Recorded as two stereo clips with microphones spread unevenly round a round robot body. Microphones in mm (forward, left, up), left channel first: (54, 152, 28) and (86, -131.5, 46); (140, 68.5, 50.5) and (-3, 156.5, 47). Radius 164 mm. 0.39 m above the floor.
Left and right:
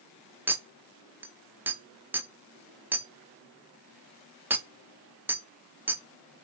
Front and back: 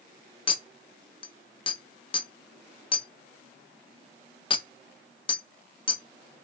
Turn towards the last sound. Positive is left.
turn(degrees=0)